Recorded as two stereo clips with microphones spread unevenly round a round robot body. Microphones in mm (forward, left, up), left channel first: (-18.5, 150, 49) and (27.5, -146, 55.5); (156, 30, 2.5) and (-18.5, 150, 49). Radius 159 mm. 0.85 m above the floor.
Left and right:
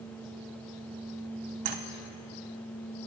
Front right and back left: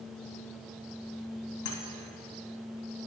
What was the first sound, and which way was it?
Keys jangling, 75° right.